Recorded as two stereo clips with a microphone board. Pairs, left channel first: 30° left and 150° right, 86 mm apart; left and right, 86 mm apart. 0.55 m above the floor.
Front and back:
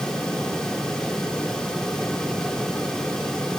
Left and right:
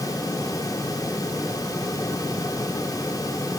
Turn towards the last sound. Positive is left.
No sound to turn to.